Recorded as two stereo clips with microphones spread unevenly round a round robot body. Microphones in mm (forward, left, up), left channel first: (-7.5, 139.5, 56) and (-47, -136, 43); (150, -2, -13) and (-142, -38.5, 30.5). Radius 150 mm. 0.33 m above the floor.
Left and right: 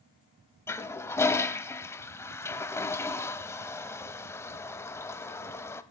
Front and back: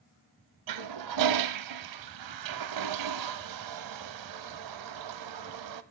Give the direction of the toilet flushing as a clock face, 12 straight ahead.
7 o'clock.